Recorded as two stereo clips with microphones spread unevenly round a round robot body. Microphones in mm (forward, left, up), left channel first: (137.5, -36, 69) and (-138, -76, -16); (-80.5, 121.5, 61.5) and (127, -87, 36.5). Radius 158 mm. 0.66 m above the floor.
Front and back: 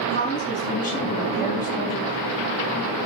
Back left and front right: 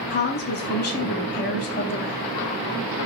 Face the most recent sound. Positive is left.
turn(degrees=75)